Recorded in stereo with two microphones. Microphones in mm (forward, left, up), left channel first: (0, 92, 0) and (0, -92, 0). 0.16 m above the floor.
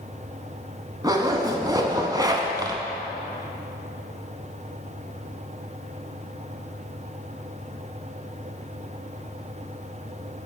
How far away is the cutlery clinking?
No cutlery clinking in this recording.